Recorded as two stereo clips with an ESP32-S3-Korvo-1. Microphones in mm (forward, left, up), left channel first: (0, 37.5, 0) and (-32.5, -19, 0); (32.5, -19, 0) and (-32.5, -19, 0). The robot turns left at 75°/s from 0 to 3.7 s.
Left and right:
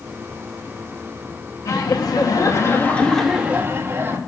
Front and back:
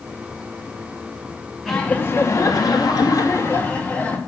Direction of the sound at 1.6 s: 90° left.